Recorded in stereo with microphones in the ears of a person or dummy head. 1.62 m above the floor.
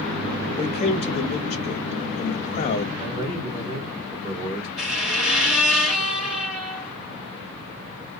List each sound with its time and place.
0.6 s a man speaking: 30° left (ahead or behind), 0.7 m
3.0 s a man speaking: 30° right (ahead or behind), 1.7 m
4.8 s a squeak: 5° right (ahead or behind), 1.6 m